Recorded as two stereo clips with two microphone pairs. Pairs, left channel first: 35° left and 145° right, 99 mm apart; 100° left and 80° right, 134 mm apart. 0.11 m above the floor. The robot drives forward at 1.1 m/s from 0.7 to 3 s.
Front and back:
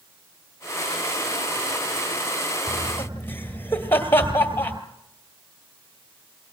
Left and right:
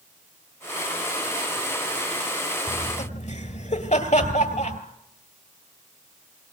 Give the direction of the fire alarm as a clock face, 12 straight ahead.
No fire alarm in this recording.